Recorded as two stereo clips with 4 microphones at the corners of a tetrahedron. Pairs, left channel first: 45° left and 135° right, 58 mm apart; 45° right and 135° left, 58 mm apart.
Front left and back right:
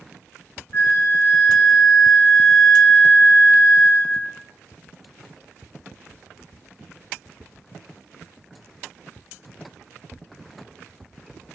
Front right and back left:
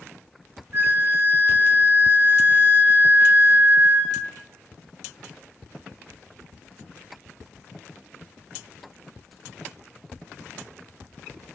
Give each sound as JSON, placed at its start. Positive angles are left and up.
{"t": 0.7, "sound": "a flute", "azimuth_deg": 90, "distance_m": 0.6}